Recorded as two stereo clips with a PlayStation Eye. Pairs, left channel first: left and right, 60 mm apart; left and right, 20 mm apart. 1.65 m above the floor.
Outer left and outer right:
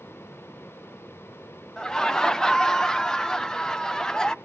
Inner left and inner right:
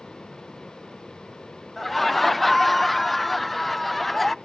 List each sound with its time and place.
1.8 s laughter: 10° left (ahead or behind), 0.5 m